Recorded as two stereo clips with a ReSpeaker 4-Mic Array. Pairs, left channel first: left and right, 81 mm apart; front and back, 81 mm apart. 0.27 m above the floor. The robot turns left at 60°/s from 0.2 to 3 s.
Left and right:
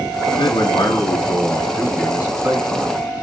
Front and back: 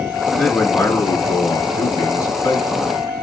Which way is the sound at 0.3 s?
85° left.